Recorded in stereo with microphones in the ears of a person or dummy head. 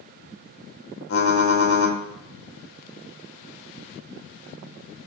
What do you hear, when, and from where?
1.1 s typing on a keyboard: 75° left (ahead or behind), 1.7 m